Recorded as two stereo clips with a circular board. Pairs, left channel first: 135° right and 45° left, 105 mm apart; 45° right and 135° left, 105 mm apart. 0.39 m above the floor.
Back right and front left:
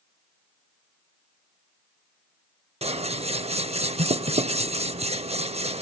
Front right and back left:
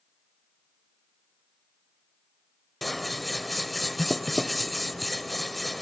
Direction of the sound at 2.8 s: 45° left.